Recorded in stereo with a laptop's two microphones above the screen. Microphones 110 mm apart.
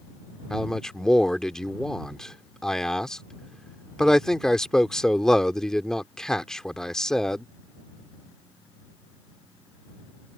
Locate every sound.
0.5 s a man speaking: 5° left (ahead or behind)